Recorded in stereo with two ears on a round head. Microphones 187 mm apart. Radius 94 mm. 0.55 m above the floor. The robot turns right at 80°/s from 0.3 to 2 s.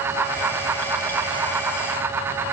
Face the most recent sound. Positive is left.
No sound to turn to.